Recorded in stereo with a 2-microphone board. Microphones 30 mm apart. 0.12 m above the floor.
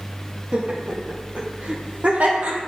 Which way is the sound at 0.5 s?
45° right (ahead or behind).